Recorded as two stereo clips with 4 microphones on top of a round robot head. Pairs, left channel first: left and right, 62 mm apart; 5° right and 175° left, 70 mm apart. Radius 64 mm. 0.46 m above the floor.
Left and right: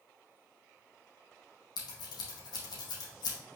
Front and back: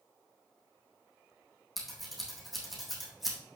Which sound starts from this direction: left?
Scissors, at 1.8 s.